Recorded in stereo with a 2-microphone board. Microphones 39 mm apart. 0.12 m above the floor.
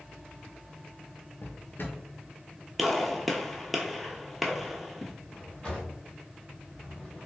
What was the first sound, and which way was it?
A drawer, 55° left (ahead or behind).